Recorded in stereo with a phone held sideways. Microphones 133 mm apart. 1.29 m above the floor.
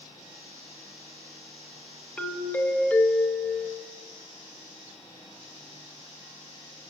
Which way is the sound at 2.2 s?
15° left (ahead or behind).